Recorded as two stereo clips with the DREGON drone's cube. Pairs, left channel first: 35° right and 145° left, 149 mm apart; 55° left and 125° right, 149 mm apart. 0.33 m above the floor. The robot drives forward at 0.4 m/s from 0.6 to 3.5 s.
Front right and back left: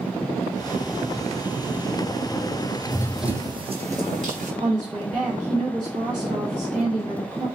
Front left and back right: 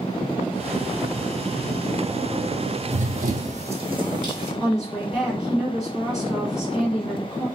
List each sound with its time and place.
2.9 s running footsteps: 90° right, 0.6 m; by 4.5 s 170° left, 1.3 m
4.6 s a woman speaking: 150° left, 1.9 m